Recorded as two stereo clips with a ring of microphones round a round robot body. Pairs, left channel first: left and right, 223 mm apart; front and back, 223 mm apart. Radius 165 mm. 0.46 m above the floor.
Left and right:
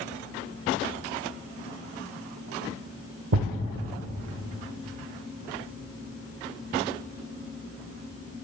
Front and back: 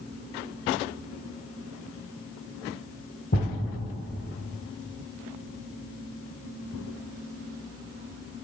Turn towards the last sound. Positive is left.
turn(degrees=-60)